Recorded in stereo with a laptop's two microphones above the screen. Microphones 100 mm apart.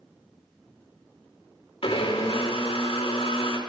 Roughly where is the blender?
Left.